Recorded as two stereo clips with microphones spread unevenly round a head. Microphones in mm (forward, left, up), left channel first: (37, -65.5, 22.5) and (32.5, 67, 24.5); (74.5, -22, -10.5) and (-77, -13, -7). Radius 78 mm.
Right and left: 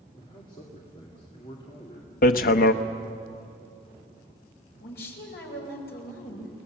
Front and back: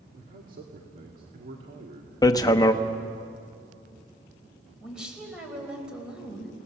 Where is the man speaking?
150° right, 2 m.